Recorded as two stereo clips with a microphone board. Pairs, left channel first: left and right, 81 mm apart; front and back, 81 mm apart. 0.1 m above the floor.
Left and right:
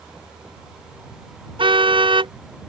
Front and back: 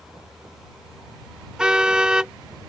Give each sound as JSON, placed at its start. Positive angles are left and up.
{"t": 1.6, "sound": "a car horn", "azimuth_deg": -100}